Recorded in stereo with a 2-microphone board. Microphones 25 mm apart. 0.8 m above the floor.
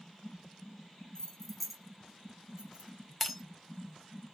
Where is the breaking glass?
5° left (ahead or behind), 0.5 m.